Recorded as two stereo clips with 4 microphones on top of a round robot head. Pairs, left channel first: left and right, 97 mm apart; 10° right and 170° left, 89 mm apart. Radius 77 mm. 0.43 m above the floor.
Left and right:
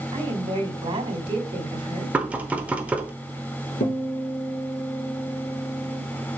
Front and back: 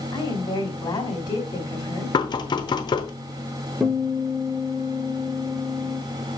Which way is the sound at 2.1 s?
15° right.